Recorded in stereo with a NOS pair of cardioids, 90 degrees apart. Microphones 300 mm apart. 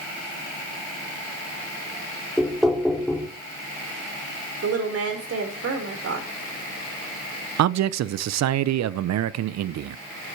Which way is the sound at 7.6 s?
65° right.